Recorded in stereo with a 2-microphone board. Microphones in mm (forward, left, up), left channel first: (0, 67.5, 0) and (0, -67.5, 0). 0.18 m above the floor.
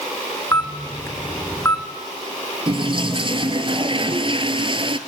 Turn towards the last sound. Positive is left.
turn(degrees=-40)  # may be behind; listen again after turning